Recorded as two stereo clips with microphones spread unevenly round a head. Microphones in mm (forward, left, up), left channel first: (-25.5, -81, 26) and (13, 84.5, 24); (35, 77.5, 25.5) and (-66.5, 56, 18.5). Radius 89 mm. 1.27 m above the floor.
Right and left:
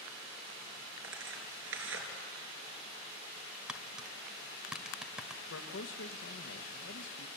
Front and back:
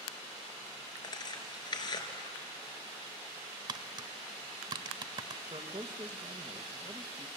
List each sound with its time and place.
1.0 s tearing paper: 55° left, 3.5 m
3.7 s tapping: 160° left, 1.3 m
5.5 s a man speaking: 110° right, 1.4 m